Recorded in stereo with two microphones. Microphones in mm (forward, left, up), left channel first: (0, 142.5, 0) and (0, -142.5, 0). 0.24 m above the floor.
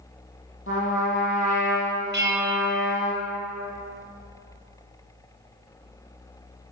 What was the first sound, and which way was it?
A trumpet, 45° left (ahead or behind).